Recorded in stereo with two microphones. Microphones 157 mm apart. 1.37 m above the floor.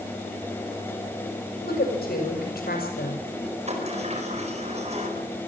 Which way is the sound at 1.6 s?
80° left.